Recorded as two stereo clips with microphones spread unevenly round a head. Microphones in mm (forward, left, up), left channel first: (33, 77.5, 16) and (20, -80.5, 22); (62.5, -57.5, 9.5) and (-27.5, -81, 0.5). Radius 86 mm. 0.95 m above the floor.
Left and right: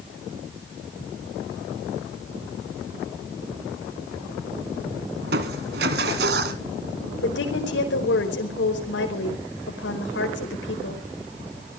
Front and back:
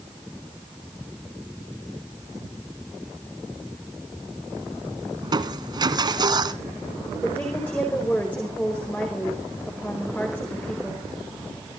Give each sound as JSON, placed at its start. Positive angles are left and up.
{"t": 5.2, "sound": "crushing", "azimuth_deg": -125, "distance_m": 1.9}
{"t": 7.2, "sound": "a woman speaking", "azimuth_deg": 95, "distance_m": 4.5}